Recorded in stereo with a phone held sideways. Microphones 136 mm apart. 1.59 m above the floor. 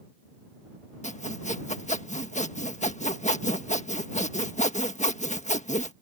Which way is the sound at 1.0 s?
60° left (ahead or behind).